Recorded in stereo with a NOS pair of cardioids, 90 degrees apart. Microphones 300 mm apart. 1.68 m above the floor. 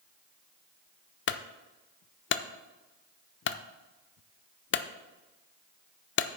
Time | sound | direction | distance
1.3 | a clunk | 40° left | 0.6 m